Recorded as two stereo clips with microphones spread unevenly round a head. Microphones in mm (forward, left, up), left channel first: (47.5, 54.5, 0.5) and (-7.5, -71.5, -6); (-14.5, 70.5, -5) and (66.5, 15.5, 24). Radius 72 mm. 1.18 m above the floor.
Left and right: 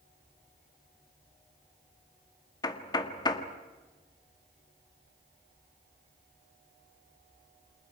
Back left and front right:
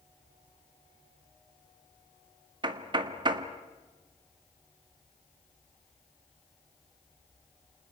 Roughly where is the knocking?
Ahead.